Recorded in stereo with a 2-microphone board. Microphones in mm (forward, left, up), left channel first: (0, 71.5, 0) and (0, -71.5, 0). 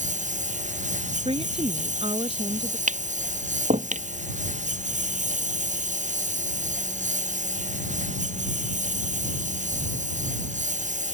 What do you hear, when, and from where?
0.0 s a lawn mower: 60° right (ahead or behind)
1.2 s a woman speaking: 45° right (ahead or behind)
2.9 s tapping: 60° right (ahead or behind)